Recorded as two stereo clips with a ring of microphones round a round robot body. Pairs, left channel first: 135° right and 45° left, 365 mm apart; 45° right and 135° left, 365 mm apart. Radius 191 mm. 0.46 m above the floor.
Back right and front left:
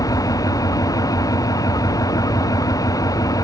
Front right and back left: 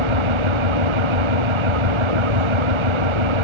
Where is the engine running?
145° left.